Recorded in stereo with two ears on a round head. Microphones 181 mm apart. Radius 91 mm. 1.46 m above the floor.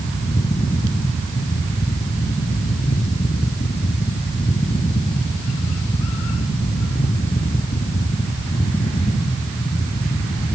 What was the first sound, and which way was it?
Only background noise.